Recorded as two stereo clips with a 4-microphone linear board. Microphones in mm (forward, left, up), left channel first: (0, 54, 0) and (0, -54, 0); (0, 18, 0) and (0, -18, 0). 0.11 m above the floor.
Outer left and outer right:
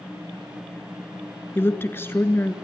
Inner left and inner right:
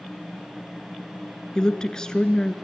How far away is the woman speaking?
About 1.3 m.